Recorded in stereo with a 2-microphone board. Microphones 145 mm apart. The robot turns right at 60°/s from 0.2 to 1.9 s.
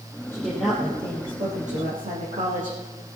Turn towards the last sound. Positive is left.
turn(degrees=-100)